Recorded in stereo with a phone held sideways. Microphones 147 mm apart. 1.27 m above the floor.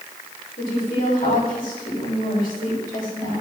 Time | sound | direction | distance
0.6 | a woman speaking | 80° left | 4 m